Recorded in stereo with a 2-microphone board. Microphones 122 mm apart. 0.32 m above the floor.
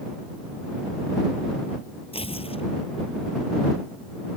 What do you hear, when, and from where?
2.1 s tearing paper: 55° left (ahead or behind)